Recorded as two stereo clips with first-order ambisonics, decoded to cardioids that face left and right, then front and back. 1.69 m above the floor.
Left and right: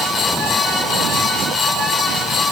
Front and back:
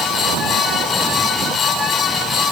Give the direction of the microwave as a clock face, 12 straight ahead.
No microwave in this recording.